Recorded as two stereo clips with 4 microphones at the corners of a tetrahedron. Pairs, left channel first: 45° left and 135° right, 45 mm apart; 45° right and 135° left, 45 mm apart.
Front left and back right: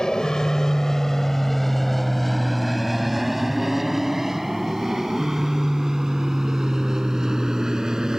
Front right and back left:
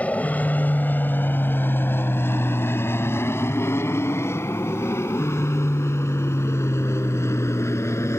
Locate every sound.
0.0 s an aircraft: 20° right; by 8.2 s 55° right